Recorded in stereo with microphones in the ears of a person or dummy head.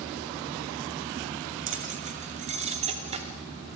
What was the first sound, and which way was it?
Keys jangling, 35° right (ahead or behind).